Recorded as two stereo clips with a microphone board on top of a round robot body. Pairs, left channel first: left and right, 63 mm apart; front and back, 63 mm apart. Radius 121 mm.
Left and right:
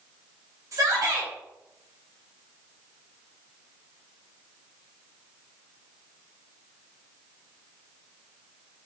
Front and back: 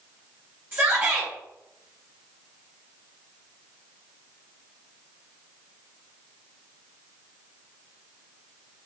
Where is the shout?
125° right, 3 m.